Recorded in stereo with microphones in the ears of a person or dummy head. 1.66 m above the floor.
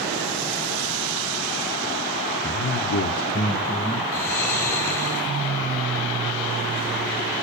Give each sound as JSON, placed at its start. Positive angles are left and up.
{"t": 2.4, "sound": "a man speaking", "side_deg": 45, "distance_m": 1.0}
{"t": 4.1, "sound": "snoring", "side_deg": 10, "distance_m": 3.0}